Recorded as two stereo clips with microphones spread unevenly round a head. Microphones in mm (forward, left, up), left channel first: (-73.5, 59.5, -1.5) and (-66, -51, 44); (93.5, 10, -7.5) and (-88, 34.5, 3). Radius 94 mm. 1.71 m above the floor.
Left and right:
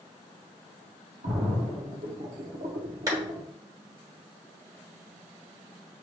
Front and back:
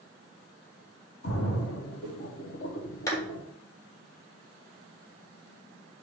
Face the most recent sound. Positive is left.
turn(degrees=-80)